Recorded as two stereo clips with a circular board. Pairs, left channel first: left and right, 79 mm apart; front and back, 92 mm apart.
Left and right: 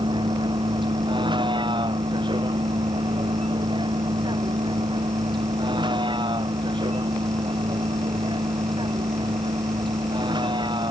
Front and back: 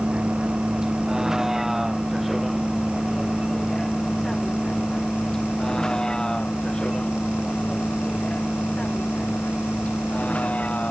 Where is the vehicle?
100° right; by 10.9 s 75° right.